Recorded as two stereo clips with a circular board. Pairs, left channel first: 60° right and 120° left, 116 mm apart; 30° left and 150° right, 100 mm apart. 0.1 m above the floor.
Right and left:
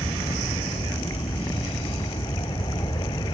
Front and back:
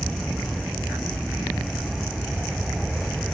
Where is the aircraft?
60° right.